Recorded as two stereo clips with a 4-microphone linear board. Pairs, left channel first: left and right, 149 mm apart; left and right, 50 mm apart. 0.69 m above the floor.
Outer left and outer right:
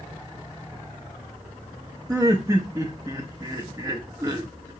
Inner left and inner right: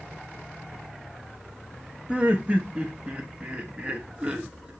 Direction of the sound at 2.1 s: 20° right (ahead or behind).